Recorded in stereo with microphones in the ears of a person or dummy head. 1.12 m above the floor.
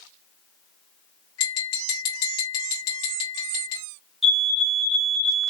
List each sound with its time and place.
1.4 s tapping: 80° left, 2.5 m
4.2 s a fire alarm: 5° left (ahead or behind), 1.3 m